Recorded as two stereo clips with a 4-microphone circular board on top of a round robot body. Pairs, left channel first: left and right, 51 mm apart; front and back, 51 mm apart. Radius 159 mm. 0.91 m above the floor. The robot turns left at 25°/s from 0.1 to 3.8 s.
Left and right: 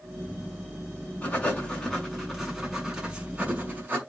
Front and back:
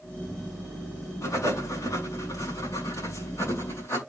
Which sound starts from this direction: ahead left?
Writing, at 1.2 s.